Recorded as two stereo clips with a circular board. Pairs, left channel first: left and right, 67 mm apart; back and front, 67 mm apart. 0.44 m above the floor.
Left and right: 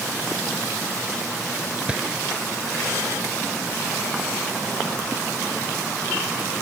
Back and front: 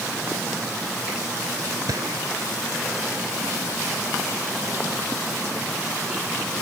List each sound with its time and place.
1.9 s a gunshot: 20° right